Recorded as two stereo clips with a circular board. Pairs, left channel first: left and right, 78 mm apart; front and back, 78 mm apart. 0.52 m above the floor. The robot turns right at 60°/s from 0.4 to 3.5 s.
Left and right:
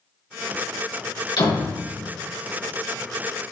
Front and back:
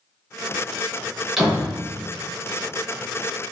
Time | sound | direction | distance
1.4 | a door slam | 95° left | 3 m